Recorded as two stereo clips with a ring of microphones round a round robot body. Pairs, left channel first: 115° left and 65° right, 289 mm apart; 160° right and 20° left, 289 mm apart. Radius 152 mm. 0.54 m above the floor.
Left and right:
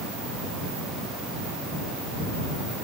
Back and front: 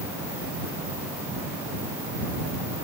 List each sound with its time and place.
Only background noise.